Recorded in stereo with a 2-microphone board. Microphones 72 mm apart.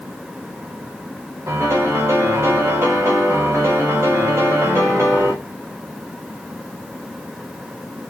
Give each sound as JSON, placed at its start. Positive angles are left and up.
{"t": 1.5, "sound": "a piano", "side_deg": -35, "distance_m": 0.8}